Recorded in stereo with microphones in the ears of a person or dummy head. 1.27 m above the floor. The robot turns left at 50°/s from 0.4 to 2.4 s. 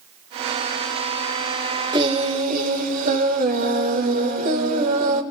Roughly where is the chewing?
No chewing in this recording.